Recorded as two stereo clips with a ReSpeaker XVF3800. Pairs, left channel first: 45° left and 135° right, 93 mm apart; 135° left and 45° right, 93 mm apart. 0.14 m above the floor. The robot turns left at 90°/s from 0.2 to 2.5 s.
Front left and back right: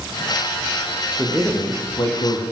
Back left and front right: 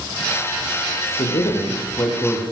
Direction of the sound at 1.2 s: 155° left.